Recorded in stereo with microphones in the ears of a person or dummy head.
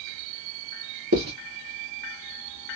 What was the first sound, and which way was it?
Writing, 70° right (ahead or behind).